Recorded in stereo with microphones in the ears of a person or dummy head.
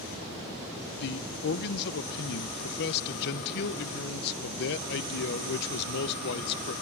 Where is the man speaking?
60° left (ahead or behind), 0.8 m.